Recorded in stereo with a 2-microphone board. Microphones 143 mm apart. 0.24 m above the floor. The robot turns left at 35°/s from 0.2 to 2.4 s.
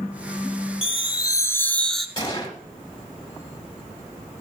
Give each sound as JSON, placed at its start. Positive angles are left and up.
{"t": 0.8, "sound": "a chime", "azimuth_deg": 45, "distance_m": 0.6}
{"t": 2.2, "sound": "a gunshot", "side_deg": 30, "distance_m": 1.1}